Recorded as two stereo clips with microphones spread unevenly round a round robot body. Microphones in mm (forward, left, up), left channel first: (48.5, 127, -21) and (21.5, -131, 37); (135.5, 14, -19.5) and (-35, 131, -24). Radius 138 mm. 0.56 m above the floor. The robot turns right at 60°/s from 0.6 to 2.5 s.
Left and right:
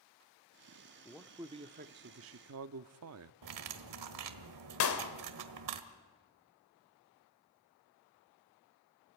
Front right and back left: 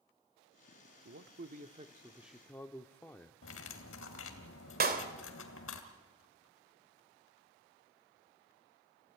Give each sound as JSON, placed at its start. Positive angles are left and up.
{"t": 1.1, "sound": "a man speaking", "azimuth_deg": 155, "distance_m": 0.8}
{"t": 3.4, "sound": "cutlery clinking", "azimuth_deg": -85, "distance_m": 1.8}
{"t": 4.8, "sound": "a clap", "azimuth_deg": 105, "distance_m": 2.0}